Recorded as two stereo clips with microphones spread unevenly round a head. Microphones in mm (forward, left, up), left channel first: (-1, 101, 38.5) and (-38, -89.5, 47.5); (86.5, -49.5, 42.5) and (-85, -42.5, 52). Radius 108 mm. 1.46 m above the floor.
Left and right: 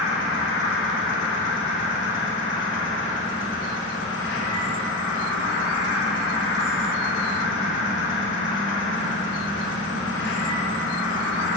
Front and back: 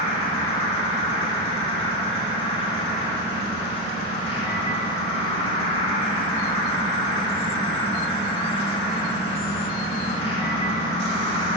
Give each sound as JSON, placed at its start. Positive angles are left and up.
{"t": 0.0, "sound": "an insect", "azimuth_deg": 55, "distance_m": 2.0}